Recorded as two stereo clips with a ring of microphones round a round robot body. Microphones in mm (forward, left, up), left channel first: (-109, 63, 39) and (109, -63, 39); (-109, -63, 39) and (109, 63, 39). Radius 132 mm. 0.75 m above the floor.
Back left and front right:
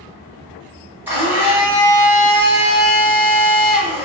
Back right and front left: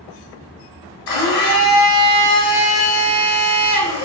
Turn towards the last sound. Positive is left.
turn(degrees=-110)